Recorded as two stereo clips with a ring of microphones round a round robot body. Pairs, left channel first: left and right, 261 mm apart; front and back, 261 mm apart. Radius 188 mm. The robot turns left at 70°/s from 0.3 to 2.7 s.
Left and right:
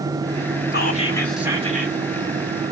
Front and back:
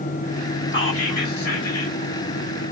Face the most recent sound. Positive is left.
turn(degrees=-95)